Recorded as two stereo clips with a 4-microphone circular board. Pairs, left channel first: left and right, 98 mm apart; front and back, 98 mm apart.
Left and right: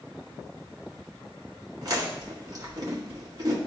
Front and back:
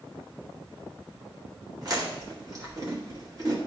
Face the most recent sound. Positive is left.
turn(degrees=-135)